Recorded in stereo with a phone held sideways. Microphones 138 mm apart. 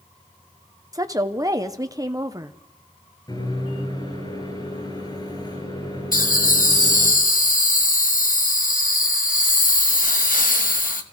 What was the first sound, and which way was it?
A woman speaking, 25° right (ahead or behind).